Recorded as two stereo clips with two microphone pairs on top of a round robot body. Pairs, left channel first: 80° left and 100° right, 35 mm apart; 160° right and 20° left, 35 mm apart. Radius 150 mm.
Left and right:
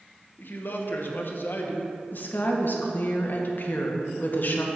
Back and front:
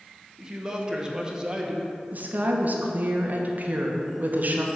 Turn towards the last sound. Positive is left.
turn(degrees=55)